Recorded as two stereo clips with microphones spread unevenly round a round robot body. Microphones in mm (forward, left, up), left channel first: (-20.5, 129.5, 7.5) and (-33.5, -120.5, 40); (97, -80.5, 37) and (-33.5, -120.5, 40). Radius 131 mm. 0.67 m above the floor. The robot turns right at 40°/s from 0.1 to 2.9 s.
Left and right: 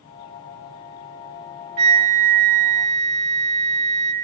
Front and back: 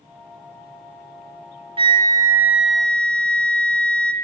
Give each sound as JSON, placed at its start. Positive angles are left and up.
{"t": 1.8, "sound": "a flute", "azimuth_deg": -110, "distance_m": 1.3}